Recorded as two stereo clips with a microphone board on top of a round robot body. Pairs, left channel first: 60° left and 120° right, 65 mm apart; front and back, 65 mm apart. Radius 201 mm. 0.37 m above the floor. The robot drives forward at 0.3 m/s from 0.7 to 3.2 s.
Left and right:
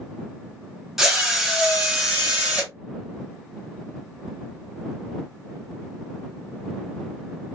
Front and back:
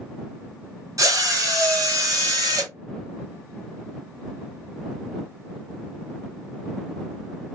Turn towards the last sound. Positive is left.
turn(degrees=165)